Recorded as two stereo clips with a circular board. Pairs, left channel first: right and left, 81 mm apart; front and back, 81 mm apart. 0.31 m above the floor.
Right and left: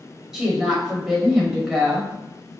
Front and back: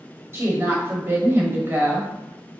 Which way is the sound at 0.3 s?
170° left.